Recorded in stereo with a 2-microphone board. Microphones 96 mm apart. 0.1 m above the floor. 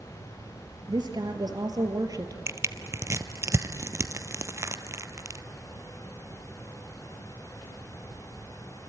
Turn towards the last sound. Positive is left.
turn(degrees=-30)  # may be behind; listen again after turning